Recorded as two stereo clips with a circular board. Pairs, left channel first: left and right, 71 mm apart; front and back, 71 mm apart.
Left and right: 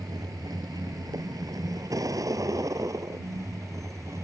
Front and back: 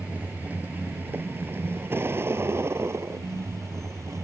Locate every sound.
0.0 s a vehicle: 110° right; by 4.2 s 135° right